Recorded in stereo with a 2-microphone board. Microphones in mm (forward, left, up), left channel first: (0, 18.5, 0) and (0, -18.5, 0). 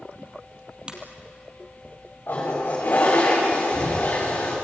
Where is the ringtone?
25° right (ahead or behind), 3 m.